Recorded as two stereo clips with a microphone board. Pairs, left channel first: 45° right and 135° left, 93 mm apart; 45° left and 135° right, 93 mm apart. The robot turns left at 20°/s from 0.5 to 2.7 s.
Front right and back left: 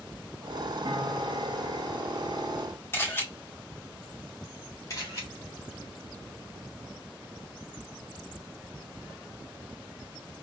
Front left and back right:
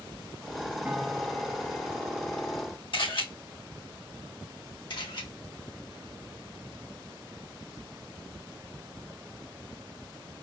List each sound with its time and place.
0.8 s a piano: 155° left, 1.0 m; by 2.6 s 120° left, 1.0 m
2.9 s a camera shutter: 20° left, 2 m
4.9 s a camera shutter: 10° left, 2 m